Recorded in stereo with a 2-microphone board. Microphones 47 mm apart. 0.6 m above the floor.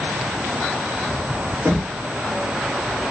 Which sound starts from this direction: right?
Knocking, at 1.6 s.